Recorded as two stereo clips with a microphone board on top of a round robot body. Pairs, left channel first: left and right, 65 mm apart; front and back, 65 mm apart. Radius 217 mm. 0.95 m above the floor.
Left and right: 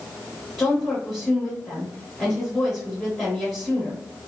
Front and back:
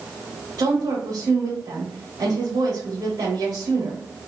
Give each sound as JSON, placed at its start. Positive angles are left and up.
{"t": 0.6, "sound": "a woman speaking", "azimuth_deg": 160, "distance_m": 1.1}